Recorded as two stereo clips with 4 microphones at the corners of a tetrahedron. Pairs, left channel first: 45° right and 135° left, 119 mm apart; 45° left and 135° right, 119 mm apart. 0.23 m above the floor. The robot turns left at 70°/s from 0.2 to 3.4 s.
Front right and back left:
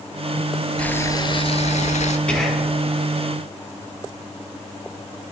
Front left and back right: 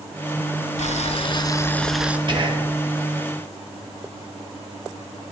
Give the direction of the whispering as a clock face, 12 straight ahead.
4 o'clock.